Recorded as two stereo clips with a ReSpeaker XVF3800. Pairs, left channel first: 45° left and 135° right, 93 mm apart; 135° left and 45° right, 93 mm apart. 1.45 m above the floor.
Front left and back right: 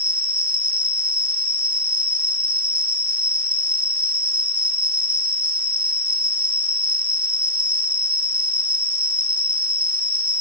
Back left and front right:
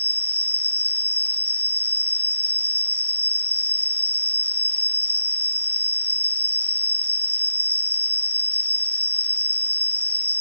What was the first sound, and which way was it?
An insect, 110° right.